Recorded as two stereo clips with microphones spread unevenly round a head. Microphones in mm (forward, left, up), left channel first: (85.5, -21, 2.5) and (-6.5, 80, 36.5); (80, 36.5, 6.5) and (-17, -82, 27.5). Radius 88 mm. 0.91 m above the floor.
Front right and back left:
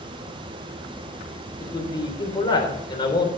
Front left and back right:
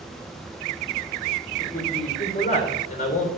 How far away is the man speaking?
About 3.5 m.